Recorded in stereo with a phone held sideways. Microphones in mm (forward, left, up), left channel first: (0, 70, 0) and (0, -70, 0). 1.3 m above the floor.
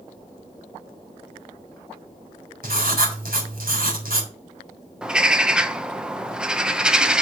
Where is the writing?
80° right, 3.5 m.